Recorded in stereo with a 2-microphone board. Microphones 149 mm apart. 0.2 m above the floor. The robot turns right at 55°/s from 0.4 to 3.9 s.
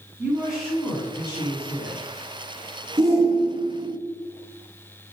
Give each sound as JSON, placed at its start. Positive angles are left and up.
{"t": 0.2, "sound": "a woman speaking", "azimuth_deg": -10, "distance_m": 2.0}
{"t": 3.0, "sound": "a shout", "side_deg": -20, "distance_m": 1.5}